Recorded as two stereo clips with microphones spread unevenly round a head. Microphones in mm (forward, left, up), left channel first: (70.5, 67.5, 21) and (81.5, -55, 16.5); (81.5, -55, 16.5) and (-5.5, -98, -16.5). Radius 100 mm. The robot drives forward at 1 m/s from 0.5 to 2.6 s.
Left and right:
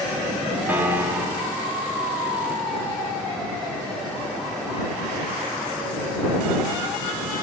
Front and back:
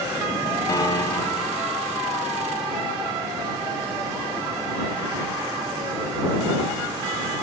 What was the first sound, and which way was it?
A piano, 10° right.